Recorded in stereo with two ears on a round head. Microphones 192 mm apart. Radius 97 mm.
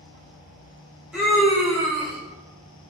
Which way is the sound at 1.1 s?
5° right (ahead or behind).